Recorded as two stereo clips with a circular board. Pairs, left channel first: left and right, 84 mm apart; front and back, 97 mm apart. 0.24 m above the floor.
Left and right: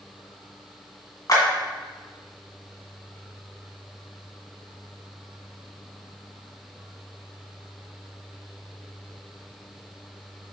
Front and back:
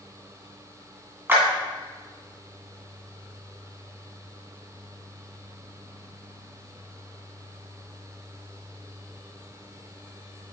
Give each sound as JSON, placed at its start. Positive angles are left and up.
{"t": 1.3, "sound": "a clap", "azimuth_deg": 120, "distance_m": 1.9}